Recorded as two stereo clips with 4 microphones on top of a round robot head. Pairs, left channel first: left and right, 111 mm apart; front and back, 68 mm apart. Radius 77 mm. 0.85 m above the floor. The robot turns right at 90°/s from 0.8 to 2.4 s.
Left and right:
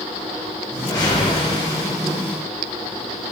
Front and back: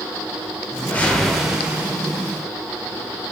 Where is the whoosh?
35° left, 0.6 m; by 1.9 s 135° left, 0.6 m.